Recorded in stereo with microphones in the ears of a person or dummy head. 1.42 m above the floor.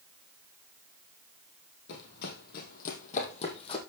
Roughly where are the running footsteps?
Left.